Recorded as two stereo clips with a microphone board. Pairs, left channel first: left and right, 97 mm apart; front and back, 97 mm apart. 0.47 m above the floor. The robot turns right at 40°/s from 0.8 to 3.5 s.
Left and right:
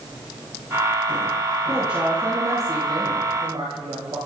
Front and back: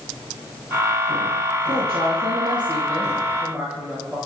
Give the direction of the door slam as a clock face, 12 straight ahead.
No door slam in this recording.